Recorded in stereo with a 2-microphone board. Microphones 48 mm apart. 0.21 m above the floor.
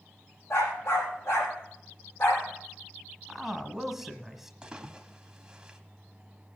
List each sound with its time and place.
0.5 s a dog barking: 70° left (ahead or behind), 5 m; by 2.5 s 60° left (ahead or behind), 4 m
3.3 s a man speaking: 5° right (ahead or behind), 1.2 m
4.6 s a splash: 15° right (ahead or behind), 1.2 m